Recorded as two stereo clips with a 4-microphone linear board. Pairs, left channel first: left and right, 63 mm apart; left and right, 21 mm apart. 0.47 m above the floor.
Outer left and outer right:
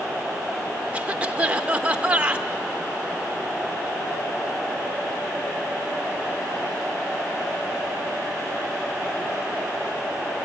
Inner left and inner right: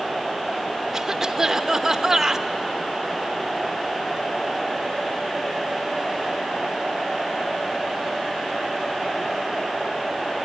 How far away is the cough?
About 0.9 m.